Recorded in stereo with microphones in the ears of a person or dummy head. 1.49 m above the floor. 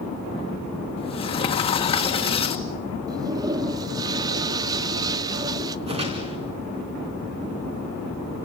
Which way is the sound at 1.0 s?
30° left (ahead or behind).